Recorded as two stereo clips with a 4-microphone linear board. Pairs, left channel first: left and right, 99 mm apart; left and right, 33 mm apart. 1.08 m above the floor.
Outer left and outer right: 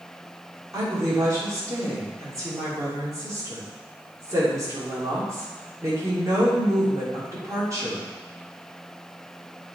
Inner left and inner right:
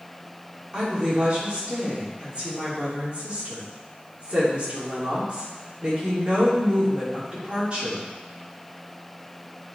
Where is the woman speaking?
35° right (ahead or behind), 3 m.